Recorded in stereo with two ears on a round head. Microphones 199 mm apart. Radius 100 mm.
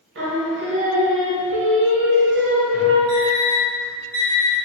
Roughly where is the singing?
Right.